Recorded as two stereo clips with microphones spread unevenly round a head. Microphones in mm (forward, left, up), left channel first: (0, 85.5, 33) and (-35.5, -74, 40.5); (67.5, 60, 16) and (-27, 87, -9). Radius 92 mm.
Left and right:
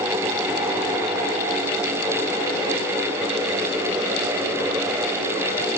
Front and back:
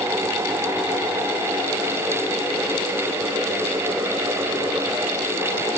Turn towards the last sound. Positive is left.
No sound to turn to.